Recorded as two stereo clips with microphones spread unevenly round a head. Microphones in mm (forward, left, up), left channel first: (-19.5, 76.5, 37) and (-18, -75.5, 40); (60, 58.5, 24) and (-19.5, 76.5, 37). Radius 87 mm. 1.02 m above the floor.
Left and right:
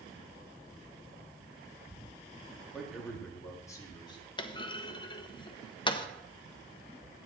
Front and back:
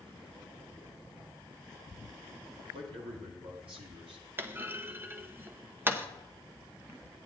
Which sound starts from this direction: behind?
A man speaking, at 2.7 s.